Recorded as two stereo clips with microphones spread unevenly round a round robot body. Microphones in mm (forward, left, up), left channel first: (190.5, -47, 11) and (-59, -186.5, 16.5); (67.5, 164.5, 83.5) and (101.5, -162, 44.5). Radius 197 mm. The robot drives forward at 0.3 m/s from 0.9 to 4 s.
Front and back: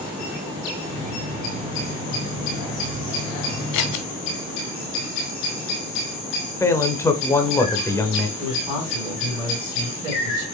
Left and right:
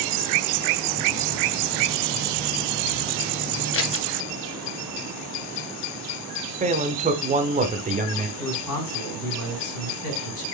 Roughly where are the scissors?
Ahead left.